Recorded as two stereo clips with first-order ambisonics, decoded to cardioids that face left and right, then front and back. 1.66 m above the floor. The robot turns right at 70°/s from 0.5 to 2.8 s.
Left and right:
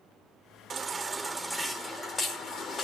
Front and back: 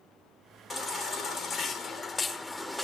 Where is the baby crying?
60° right, 1.4 m; by 2.9 s 90° left, 1.4 m.